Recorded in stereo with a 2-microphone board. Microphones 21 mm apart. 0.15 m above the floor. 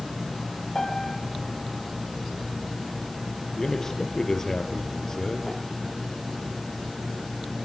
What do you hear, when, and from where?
0.8 s a piano: 30° left (ahead or behind), 9.5 m
3.6 s a man speaking: 30° left (ahead or behind), 3.5 m